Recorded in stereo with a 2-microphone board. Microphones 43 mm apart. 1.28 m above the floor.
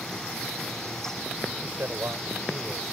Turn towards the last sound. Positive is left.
turn(degrees=-85)